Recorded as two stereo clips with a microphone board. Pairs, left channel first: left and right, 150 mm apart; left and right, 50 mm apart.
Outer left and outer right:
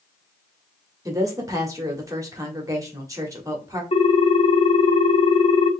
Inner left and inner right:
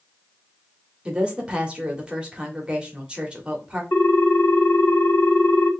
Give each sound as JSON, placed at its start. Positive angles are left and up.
{"t": 1.1, "sound": "a woman speaking", "side_deg": -20, "distance_m": 1.3}
{"t": 3.9, "sound": "a ringtone", "side_deg": 50, "distance_m": 1.1}